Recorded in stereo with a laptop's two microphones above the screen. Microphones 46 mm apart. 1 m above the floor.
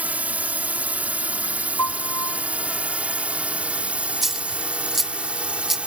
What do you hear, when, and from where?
0.0 s a drone: 35° right (ahead or behind); by 5.9 s 25° right (ahead or behind)
1.8 s a piano: 75° left (ahead or behind)
4.2 s a dropped coin: 5° right (ahead or behind)